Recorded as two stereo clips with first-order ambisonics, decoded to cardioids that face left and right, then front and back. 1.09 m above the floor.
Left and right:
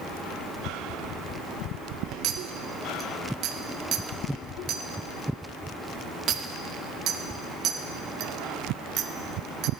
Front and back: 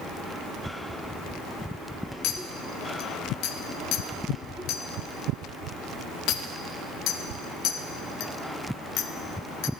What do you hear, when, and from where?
2.2 s a clink: 40° right, 0.8 m